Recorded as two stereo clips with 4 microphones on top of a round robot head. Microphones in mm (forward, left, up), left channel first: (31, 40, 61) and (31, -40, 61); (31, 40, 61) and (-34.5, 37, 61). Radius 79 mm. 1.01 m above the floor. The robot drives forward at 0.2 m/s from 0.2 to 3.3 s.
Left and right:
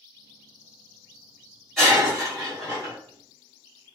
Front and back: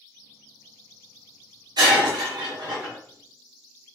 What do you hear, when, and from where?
1.8 s breaking glass: 175° left, 1.7 m; by 3.0 s straight behind, 2.0 m